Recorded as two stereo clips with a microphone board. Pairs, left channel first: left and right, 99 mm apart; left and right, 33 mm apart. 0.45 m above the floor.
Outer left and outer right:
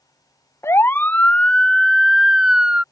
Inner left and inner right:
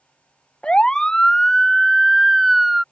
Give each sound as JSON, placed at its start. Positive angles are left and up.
{"t": 0.6, "sound": "a siren", "side_deg": 25}